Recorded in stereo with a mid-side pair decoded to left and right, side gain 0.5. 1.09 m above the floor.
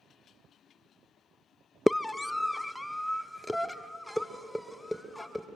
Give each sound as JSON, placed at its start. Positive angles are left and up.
{"t": 1.9, "sound": "a scream", "azimuth_deg": 15, "distance_m": 0.5}